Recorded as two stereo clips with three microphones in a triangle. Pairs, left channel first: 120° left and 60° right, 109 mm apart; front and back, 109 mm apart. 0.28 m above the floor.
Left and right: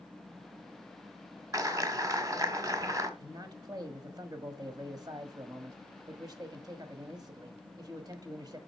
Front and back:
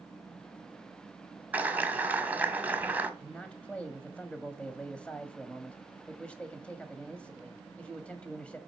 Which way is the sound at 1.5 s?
110° right.